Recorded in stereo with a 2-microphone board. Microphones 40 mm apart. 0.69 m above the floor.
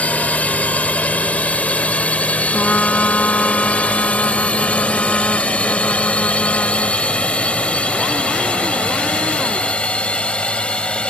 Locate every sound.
0.0 s a drone: 35° left (ahead or behind); by 11.1 s 30° left (ahead or behind)
2.5 s a trumpet: 50° left (ahead or behind)